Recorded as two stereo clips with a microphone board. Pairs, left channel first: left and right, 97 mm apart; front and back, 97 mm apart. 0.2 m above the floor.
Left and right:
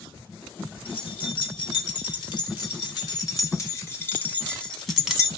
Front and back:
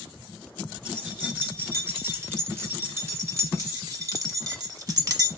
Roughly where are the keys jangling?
Left.